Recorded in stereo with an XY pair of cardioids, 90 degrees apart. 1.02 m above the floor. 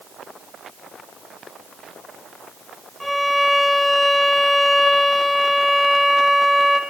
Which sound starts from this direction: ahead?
A violin, at 3.0 s.